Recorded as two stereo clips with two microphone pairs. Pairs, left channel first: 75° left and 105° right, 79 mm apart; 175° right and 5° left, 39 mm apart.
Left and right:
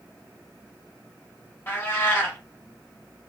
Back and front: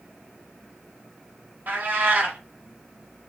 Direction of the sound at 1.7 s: 20° left.